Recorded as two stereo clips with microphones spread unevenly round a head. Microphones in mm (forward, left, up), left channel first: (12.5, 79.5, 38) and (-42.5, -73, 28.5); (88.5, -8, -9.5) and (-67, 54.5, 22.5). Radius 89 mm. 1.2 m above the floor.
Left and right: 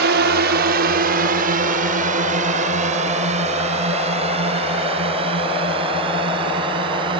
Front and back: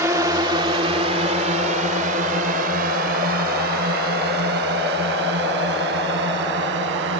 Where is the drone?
125° right; by 7.2 s 170° right.